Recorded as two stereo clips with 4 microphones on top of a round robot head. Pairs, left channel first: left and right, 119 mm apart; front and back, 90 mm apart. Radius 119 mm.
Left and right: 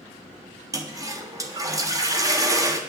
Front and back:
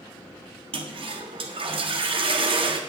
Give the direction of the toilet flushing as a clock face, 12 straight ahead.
5 o'clock.